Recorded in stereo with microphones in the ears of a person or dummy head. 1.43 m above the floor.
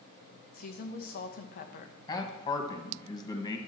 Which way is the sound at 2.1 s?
25° left (ahead or behind).